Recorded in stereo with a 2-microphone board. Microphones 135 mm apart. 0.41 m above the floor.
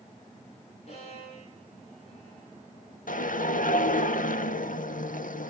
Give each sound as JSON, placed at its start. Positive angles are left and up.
{"t": 0.9, "sound": "a violin", "side_deg": 50, "distance_m": 9.5}
{"t": 3.1, "sound": "a whoosh", "side_deg": 80, "distance_m": 0.6}